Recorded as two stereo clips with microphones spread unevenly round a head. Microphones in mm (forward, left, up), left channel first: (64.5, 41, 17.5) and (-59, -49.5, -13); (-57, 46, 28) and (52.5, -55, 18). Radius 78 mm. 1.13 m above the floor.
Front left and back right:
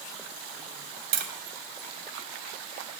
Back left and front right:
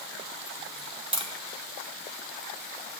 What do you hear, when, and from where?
1.1 s tapping: 105° right, 2.5 m